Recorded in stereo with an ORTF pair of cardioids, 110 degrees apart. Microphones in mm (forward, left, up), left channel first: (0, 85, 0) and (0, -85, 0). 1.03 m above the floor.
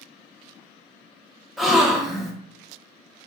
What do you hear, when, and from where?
1.6 s a gasp: straight ahead, 0.7 m